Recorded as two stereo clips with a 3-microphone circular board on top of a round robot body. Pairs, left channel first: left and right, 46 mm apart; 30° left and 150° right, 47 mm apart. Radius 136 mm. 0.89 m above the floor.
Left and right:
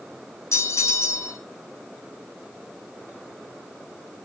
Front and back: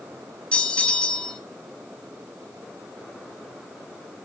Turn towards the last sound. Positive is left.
turn(degrees=100)